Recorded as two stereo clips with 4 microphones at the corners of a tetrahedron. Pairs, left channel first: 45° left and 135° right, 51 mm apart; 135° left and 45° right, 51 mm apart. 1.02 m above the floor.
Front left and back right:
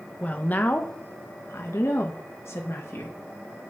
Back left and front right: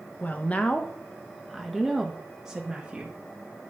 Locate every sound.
0.2 s a woman speaking: 95° left, 1.1 m; by 3.2 s 25° left, 1.9 m